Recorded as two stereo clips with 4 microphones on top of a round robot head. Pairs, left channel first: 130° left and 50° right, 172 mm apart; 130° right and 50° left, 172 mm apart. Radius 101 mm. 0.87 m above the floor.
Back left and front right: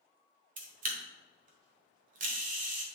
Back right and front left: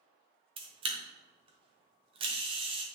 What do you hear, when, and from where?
0.6 s a camera shutter: 10° right, 1.2 m